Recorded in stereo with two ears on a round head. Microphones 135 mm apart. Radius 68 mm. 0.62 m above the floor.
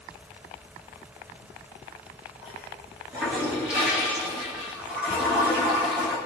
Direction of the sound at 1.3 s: 10° right (ahead or behind).